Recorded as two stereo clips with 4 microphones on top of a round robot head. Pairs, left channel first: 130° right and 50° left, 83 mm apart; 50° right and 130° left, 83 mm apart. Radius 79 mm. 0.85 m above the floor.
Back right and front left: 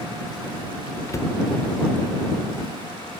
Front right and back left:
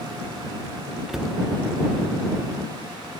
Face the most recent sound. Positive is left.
turn(degrees=-150)